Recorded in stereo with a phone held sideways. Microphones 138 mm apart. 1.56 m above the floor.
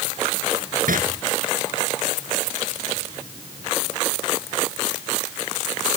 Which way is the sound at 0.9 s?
80° right.